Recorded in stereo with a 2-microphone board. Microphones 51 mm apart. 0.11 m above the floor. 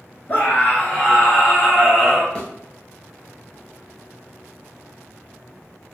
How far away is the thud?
About 1.0 m.